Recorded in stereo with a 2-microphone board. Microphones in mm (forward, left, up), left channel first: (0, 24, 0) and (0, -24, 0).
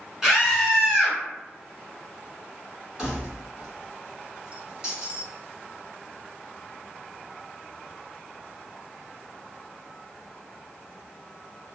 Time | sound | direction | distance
0.2 | a scream | 10° right (ahead or behind) | 1.6 m
3.0 | keys jangling | 20° right (ahead or behind) | 1.5 m